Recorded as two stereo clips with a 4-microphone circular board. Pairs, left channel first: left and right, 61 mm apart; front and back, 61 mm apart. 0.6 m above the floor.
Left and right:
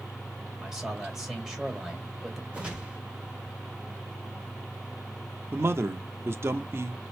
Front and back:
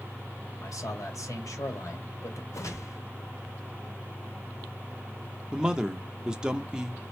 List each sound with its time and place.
0.6 s a man speaking: 10° right, 2 m
2.5 s a whoosh: 20° right, 1.7 m
5.5 s a man speaking: 105° right, 0.8 m